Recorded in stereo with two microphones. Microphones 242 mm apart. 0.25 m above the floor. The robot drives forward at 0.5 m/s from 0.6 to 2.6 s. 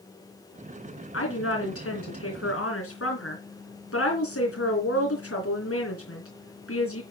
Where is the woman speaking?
65° left (ahead or behind), 3 m.